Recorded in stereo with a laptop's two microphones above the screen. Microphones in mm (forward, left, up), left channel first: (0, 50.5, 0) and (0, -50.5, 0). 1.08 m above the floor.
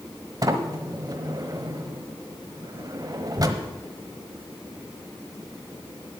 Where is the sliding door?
40° right (ahead or behind), 1.1 m.